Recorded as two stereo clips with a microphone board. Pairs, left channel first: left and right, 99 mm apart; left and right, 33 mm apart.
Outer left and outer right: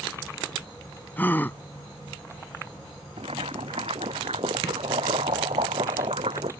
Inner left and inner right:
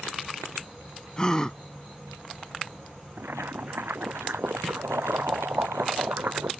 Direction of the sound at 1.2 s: 20° left (ahead or behind).